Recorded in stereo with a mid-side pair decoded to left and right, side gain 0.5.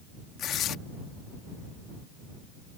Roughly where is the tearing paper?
Ahead left.